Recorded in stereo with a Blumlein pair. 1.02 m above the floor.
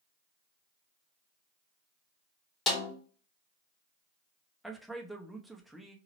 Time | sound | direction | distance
2.7 | a snare drum | 25° left | 1.5 m
4.6 | a man speaking | straight ahead | 0.7 m